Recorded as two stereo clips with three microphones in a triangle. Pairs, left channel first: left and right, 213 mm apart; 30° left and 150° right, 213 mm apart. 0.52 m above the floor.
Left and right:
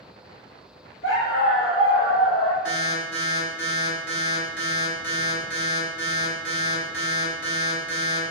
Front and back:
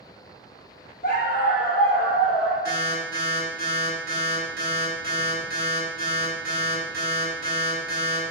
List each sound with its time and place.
1.0 s a dog barking: 75° left, 4 m; by 2.5 s 95° left, 4.5 m
2.6 s an alarm: 70° left, 6 m